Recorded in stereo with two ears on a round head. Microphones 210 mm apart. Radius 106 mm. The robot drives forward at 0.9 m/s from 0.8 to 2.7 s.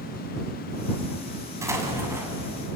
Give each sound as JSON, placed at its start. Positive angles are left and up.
{"t": 1.6, "sound": "an explosion", "side_deg": -15, "distance_m": 4.0}